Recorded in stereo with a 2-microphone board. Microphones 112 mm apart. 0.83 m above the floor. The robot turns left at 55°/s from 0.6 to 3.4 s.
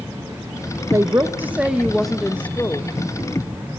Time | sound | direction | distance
0.9 | a woman speaking | 120° right | 0.6 m